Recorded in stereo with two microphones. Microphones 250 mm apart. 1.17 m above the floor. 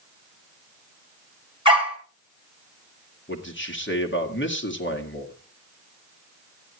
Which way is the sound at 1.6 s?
20° right (ahead or behind).